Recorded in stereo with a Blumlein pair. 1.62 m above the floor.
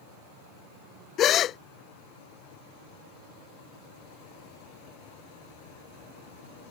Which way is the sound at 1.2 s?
30° left.